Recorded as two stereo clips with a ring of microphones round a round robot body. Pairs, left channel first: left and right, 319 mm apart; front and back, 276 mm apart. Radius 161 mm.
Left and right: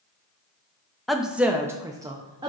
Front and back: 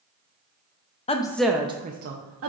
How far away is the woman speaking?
About 0.5 m.